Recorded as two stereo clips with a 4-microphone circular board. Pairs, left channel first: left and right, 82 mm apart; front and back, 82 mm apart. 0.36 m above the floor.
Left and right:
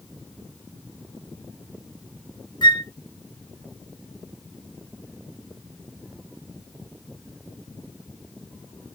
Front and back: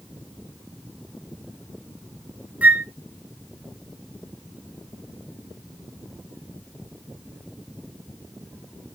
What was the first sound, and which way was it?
A flute, 110° left.